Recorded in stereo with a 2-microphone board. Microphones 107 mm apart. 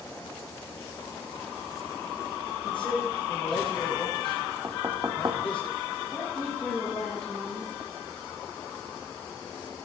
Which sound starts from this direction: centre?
A woman speaking, at 6.1 s.